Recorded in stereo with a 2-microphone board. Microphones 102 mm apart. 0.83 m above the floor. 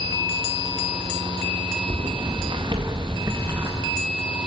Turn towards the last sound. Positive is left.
turn(degrees=-25)  # may be behind; listen again after turning